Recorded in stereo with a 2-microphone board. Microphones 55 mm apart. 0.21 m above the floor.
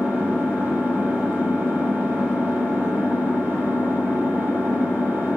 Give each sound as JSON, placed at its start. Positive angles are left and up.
{"t": 0.0, "sound": "an engine running", "side_deg": -40, "distance_m": 5.0}